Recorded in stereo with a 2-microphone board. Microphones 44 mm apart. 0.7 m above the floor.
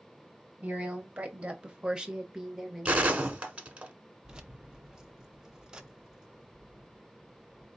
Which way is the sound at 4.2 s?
20° right (ahead or behind).